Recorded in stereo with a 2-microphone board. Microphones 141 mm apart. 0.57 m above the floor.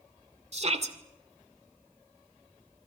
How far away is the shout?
About 2 m.